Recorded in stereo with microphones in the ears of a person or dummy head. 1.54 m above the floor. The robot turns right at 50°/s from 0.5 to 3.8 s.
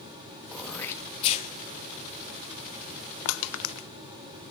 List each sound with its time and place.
0.5 s throat clearing: centre (ahead or behind), 1.7 m; by 1.5 s 45° left (ahead or behind), 1.7 m
3.2 s crushing: 75° left (ahead or behind), 0.5 m; by 3.9 s 65° left (ahead or behind), 0.5 m